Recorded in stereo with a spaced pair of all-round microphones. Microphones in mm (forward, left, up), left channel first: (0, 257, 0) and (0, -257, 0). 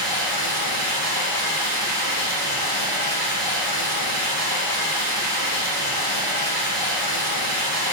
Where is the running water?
50° right (ahead or behind), 1.5 m.